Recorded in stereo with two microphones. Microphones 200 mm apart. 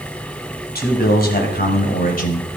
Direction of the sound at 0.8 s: 55° left (ahead or behind).